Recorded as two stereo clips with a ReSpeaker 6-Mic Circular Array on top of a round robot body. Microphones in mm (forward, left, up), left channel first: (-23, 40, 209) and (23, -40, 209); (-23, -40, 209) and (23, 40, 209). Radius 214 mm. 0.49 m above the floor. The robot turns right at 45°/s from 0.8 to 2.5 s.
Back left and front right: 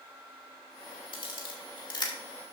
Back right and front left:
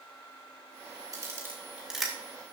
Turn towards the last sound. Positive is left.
turn(degrees=170)